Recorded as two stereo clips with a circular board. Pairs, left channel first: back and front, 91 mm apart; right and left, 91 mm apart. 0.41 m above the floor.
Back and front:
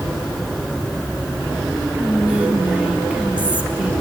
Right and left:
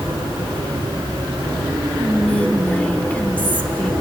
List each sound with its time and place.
1.9 s whispering: 45° right, 0.9 m